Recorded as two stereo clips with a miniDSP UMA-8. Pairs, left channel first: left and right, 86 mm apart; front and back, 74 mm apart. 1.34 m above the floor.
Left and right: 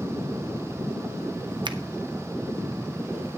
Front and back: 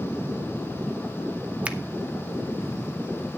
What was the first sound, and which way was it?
A finger snap, 105° right.